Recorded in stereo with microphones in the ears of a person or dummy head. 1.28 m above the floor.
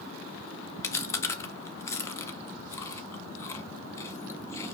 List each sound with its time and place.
0.8 s chewing: 25° left (ahead or behind), 0.6 m